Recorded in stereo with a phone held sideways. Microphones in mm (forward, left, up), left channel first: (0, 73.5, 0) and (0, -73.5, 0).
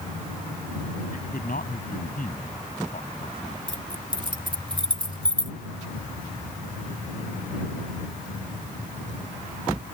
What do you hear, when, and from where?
1.1 s a man speaking: 75° left (ahead or behind)
3.7 s keys jangling: 30° right (ahead or behind)